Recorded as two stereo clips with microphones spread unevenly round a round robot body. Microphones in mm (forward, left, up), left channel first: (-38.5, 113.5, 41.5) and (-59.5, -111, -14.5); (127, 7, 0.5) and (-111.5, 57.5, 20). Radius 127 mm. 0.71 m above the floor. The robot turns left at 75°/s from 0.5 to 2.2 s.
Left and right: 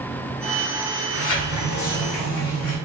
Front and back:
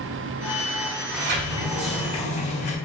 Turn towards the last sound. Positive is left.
turn(degrees=50)